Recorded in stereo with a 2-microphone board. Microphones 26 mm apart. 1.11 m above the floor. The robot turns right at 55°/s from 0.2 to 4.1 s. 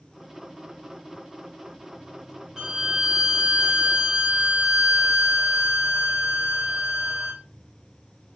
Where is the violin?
15° right (ahead or behind), 0.8 m; by 7.4 s 10° right (ahead or behind), 0.8 m.